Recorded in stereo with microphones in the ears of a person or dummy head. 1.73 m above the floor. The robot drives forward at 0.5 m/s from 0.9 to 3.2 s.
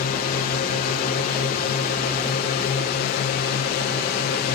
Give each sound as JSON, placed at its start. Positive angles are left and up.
{"t": 0.0, "sound": "a drone", "side_deg": 45}